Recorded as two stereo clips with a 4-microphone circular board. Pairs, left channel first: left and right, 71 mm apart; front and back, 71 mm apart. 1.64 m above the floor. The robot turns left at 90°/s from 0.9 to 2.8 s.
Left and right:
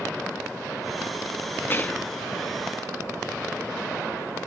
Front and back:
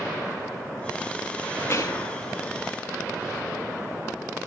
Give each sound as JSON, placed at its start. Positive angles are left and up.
{"t": 1.7, "sound": "whispering", "azimuth_deg": 40, "distance_m": 0.8}